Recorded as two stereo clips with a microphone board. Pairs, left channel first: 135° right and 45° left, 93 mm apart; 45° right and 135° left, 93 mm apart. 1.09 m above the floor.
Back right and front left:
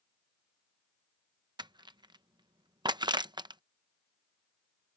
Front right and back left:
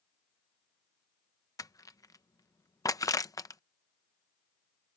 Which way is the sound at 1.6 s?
10° left.